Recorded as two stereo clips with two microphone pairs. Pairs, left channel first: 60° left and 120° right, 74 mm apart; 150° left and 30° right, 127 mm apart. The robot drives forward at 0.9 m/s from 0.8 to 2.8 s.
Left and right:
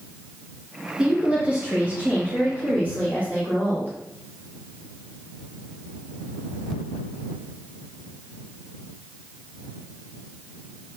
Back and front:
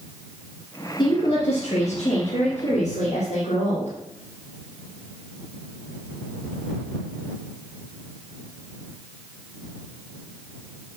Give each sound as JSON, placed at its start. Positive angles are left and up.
{"t": 1.0, "sound": "a woman speaking", "azimuth_deg": 165, "distance_m": 1.5}